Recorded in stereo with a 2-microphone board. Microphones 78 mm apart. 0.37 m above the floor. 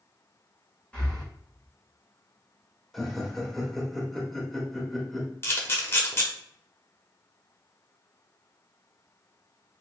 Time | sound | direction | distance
0.9 | breathing | 15° left (ahead or behind) | 1.5 m
2.9 | laughter | 5° left (ahead or behind) | 1.0 m
5.4 | a camera shutter | 30° left (ahead or behind) | 1.0 m